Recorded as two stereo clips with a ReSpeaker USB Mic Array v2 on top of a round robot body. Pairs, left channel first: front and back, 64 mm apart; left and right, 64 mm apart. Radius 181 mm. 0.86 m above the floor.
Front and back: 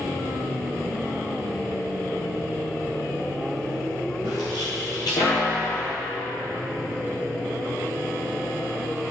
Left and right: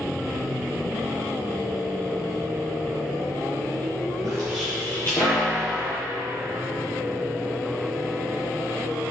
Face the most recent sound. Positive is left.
turn(degrees=45)